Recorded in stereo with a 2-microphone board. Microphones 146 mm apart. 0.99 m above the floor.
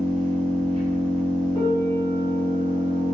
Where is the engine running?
35° right (ahead or behind), 1.4 m.